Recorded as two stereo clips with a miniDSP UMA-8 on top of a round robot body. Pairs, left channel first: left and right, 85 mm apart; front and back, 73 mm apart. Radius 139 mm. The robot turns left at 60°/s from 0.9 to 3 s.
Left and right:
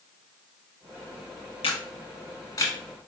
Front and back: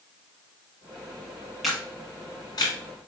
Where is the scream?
I don't hear a scream.